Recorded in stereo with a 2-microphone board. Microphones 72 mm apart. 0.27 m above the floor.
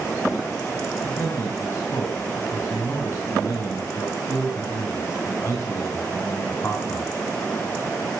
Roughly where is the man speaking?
Left.